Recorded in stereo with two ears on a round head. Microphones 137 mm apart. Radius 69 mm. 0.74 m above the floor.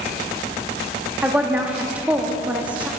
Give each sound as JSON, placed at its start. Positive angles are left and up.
{"t": 1.2, "sound": "a woman speaking", "side_deg": -10, "distance_m": 1.0}